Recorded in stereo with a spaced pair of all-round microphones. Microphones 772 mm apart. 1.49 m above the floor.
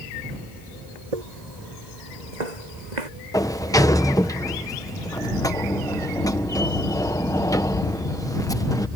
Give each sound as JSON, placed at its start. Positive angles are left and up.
{"t": 1.1, "sound": "footsteps", "side_deg": -55}
{"t": 3.3, "sound": "a sliding door", "side_deg": 5}